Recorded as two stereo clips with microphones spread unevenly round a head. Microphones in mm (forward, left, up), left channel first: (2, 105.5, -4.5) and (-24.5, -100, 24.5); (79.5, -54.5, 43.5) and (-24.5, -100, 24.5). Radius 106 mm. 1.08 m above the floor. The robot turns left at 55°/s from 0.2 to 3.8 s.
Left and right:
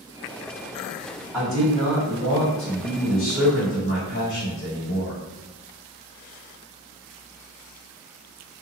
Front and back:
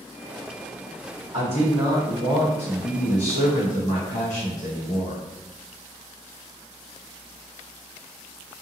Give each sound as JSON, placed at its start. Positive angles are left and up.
{"t": 1.3, "sound": "a man speaking", "azimuth_deg": 175, "distance_m": 1.9}